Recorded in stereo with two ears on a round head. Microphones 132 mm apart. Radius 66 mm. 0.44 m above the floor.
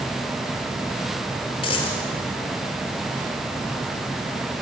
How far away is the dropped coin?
About 4.5 m.